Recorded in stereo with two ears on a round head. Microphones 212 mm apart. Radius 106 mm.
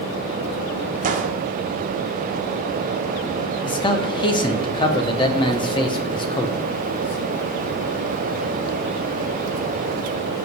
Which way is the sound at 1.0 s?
35° right (ahead or behind).